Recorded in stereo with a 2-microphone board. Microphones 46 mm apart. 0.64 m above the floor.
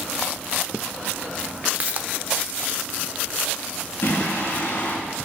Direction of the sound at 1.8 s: 35° right (ahead or behind).